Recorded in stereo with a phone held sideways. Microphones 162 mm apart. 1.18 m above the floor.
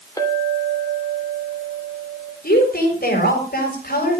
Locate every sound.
0.2 s a clink: 20° left (ahead or behind), 3 m
2.4 s a woman speaking: 70° left (ahead or behind), 7 m